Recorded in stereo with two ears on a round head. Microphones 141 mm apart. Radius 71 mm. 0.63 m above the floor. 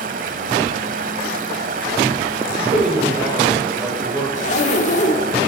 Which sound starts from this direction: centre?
A man speaking, at 2.5 s.